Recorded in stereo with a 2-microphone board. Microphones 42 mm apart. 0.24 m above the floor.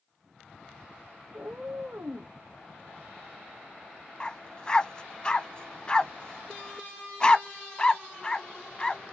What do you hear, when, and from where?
1.3 s a cat meowing: 55° right (ahead or behind), 1.2 m
4.2 s a dog barking: 20° left (ahead or behind), 0.6 m